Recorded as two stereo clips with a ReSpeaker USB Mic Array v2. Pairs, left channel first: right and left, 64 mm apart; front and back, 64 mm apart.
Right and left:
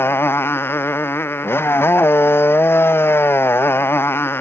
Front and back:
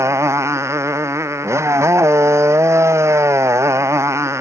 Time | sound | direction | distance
0.0 | a motorcycle | 140° right | ?